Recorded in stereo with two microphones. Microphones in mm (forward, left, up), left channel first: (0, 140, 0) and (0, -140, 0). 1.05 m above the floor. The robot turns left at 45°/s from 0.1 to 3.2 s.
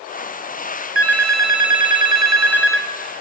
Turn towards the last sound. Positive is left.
turn(degrees=-150)